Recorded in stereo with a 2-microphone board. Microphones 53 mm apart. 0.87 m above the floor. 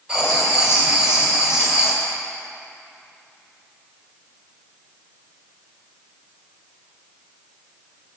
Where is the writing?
15° right (ahead or behind), 1.2 m.